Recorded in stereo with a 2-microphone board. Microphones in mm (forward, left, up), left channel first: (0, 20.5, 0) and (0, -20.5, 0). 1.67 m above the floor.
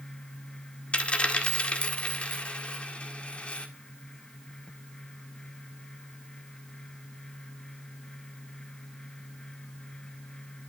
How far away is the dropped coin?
About 1.6 m.